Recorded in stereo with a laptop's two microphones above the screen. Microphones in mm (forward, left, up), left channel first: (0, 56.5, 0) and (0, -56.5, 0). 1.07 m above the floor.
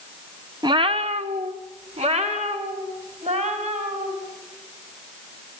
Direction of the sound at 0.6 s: 35° right (ahead or behind).